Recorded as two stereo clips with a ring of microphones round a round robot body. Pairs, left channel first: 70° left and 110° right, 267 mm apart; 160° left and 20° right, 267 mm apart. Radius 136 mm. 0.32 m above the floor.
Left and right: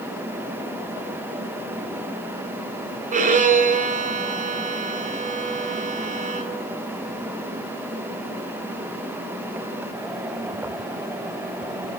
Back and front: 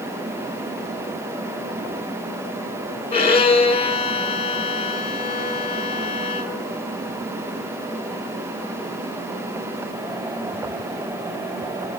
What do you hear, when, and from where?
3.1 s a violin: 150° right, 1.4 m